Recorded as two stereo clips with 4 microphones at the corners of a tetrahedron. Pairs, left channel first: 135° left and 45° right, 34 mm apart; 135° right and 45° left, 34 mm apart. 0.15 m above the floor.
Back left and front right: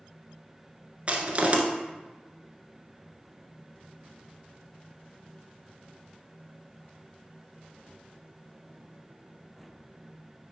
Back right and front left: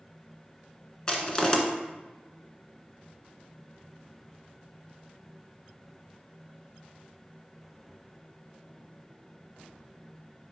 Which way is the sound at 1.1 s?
75° right.